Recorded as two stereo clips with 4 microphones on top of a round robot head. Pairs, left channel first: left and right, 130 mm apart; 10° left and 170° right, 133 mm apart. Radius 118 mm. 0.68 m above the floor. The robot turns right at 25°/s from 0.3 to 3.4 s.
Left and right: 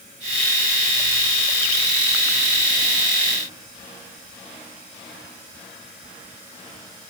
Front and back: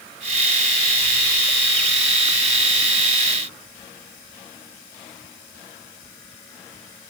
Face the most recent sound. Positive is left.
No sound to turn to.